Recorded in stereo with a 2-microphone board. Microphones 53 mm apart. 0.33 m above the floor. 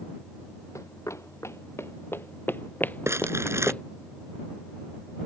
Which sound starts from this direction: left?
Running footsteps, at 0.8 s.